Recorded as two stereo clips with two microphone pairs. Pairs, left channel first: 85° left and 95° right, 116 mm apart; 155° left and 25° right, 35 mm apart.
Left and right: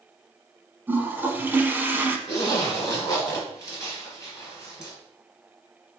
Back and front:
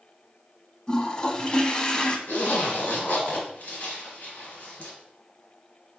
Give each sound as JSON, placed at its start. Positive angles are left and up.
{"t": 0.9, "sound": "a toilet flushing", "azimuth_deg": -160, "distance_m": 0.6}
{"t": 2.3, "sound": "a zipper", "azimuth_deg": 140, "distance_m": 2.0}